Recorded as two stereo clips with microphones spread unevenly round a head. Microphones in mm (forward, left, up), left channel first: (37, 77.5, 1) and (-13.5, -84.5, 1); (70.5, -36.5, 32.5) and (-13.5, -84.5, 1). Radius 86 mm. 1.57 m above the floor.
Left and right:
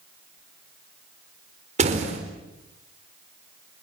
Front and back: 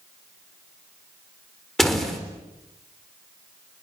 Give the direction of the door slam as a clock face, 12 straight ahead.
2 o'clock.